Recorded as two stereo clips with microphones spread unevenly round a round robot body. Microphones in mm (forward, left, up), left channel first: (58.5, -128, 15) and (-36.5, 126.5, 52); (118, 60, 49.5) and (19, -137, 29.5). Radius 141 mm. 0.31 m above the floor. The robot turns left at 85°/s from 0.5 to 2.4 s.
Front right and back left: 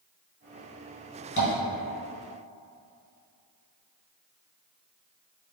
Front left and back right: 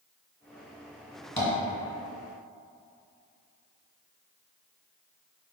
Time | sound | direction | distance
1.4 | tapping | 15° right | 2.0 m